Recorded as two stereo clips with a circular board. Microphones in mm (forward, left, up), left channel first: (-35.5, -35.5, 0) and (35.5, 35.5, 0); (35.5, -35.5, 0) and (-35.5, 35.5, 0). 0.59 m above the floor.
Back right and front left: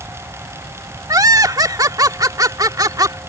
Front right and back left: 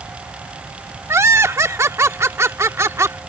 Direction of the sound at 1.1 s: 85° left.